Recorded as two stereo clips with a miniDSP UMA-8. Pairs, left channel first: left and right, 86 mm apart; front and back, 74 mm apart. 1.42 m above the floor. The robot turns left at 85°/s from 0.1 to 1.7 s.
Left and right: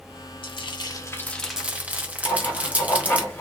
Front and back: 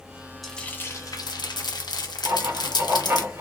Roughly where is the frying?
Left.